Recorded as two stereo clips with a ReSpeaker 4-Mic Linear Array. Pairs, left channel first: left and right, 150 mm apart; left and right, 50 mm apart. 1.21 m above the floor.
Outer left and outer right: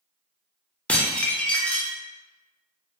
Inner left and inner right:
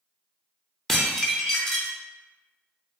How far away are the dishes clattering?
About 0.5 m.